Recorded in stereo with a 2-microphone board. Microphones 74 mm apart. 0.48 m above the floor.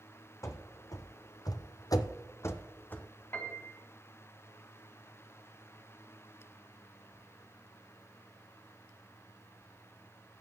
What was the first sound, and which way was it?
Running footsteps, 40° left (ahead or behind).